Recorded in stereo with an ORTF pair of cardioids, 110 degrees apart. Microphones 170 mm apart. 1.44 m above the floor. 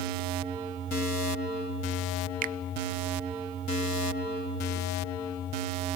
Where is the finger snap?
55° right, 0.8 m.